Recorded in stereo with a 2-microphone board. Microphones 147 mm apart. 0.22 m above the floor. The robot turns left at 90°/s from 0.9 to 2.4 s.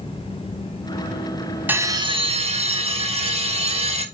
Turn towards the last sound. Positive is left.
turn(degrees=-80)